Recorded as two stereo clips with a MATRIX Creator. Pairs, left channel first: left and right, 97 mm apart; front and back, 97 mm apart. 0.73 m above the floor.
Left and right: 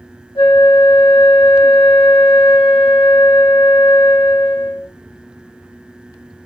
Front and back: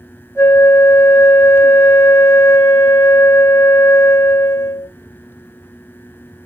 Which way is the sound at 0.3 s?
65° left.